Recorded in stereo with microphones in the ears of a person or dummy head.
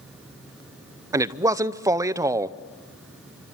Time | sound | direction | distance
1.1 | a man speaking | 10° right (ahead or behind) | 0.7 m